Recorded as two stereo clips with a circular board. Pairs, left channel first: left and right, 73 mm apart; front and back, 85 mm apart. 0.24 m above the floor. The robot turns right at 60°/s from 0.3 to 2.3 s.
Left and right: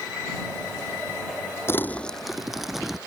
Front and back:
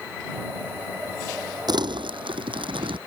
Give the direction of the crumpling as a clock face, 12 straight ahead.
7 o'clock.